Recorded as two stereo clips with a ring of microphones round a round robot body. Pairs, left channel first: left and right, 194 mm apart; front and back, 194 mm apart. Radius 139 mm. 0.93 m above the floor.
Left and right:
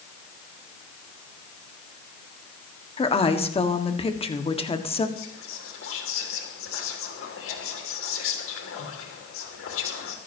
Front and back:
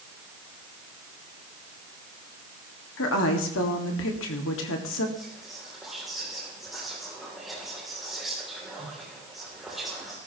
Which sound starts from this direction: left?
Whispering, at 5.2 s.